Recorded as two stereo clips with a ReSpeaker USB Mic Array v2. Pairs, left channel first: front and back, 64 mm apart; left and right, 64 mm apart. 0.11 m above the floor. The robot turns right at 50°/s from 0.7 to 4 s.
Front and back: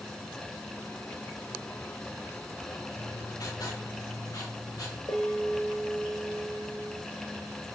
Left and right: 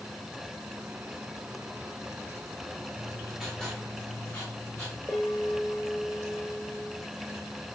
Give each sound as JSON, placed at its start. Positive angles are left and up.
{"t": 2.9, "sound": "writing", "azimuth_deg": -20, "distance_m": 8.0}
{"t": 5.1, "sound": "a bell", "azimuth_deg": 20, "distance_m": 5.0}